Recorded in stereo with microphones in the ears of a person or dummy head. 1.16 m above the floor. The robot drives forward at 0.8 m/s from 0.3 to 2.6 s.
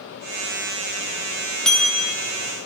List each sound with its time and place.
1.6 s a bell: 5° left (ahead or behind), 0.8 m; by 2.1 s centre (ahead or behind), 1.2 m